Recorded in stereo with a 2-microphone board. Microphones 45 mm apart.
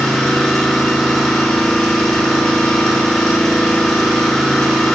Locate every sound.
0.0 s an engine running: 10° left (ahead or behind), 1.0 m